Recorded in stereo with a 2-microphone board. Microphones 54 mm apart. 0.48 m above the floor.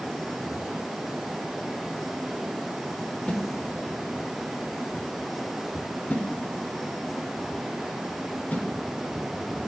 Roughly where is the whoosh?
Left.